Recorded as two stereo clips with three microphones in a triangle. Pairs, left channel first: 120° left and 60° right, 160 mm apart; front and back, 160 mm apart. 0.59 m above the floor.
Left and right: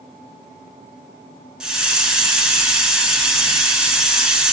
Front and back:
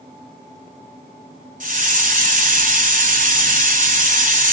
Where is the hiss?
145° right, 1.6 m.